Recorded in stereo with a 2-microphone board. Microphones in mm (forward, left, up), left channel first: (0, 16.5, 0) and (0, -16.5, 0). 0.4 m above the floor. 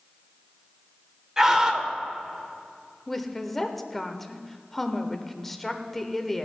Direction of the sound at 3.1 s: 5° left (ahead or behind).